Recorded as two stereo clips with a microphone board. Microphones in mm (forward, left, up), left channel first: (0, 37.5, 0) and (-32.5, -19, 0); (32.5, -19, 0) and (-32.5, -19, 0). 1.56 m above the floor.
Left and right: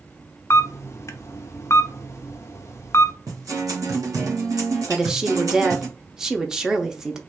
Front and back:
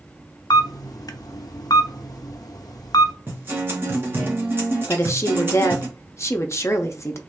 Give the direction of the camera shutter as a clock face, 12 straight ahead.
11 o'clock.